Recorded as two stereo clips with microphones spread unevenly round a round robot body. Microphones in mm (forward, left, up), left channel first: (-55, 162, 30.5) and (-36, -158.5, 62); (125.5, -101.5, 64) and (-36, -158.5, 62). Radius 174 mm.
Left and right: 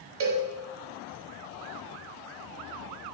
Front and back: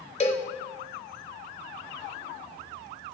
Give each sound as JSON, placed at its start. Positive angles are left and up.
{"t": 0.2, "sound": "a cowbell", "azimuth_deg": -35, "distance_m": 1.2}